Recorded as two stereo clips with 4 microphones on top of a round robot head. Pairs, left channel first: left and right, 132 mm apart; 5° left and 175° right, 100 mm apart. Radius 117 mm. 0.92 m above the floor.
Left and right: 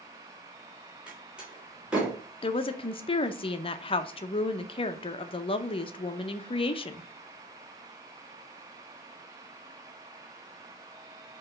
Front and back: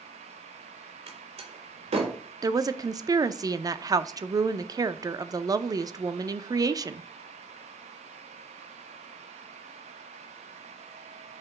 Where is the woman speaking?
135° left, 0.6 m.